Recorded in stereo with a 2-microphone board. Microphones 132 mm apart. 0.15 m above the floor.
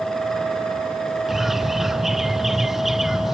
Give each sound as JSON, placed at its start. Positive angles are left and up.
{"t": 1.3, "sound": "a bird", "side_deg": -5}